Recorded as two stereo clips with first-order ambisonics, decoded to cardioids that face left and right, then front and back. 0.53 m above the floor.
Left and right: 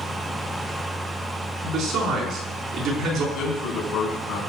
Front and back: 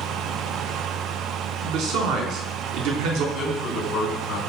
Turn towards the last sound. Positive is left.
turn(degrees=60)